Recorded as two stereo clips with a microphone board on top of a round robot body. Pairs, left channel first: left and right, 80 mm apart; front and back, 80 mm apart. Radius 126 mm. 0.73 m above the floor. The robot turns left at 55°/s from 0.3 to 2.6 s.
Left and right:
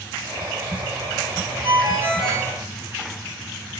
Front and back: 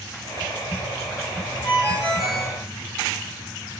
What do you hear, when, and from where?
1.6 s a ringtone: 65° right, 1.5 m; by 2.5 s 115° right, 1.5 m